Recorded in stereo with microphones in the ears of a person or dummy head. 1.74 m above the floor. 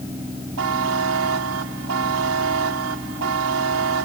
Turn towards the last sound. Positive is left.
turn(degrees=-80)